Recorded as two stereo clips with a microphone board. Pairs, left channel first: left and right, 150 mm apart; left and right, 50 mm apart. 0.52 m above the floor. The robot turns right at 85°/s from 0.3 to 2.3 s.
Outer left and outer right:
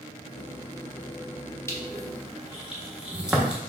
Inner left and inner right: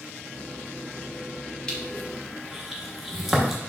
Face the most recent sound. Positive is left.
turn(degrees=-5)  # may be behind; listen again after turning